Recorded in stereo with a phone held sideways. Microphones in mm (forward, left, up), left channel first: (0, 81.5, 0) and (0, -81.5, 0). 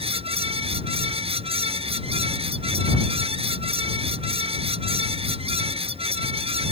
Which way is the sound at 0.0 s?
35° right (ahead or behind).